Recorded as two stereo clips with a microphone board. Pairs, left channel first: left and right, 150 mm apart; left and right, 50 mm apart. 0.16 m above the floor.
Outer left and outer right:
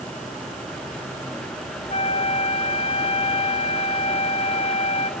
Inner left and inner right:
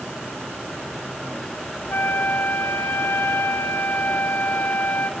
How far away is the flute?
About 0.9 m.